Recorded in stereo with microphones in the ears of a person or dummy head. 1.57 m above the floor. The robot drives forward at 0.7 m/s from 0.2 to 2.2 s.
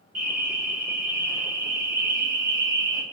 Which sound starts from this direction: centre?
An alarm, at 0.1 s.